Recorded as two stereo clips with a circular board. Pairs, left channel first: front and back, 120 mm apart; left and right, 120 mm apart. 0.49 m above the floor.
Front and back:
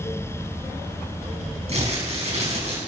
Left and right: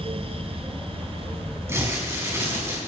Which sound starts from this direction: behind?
Crumpling, at 1.7 s.